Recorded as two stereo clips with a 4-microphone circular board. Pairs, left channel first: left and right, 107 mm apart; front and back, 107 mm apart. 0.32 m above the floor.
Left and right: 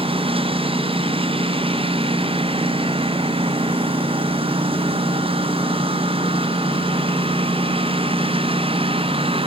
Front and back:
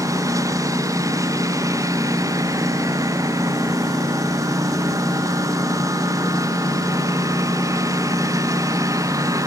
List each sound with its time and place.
0.0 s a lawn mower: 120° right